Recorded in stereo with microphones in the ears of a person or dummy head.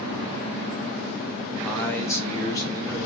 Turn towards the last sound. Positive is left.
turn(degrees=20)  # may be behind; listen again after turning